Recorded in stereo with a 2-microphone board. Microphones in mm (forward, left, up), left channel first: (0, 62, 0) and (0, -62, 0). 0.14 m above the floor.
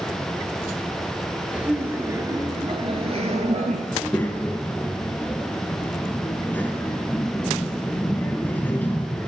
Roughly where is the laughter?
Centre.